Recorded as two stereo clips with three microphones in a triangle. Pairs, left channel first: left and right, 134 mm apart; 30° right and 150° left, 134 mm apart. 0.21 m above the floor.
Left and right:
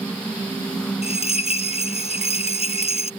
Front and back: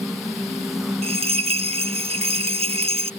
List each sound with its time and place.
1.0 s a bell: 120° left